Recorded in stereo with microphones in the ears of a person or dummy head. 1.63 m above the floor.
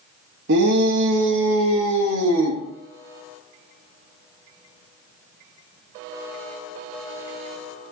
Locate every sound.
0.5 s a shout: 60° right (ahead or behind), 2.5 m; by 2.6 s 90° right, 3 m